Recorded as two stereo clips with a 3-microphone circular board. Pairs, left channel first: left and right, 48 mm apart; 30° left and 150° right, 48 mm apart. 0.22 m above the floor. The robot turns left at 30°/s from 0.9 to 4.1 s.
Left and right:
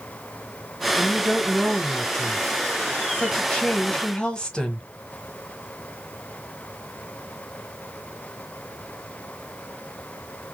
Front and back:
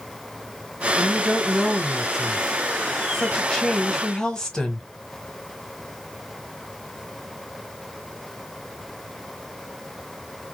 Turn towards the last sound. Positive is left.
turn(degrees=70)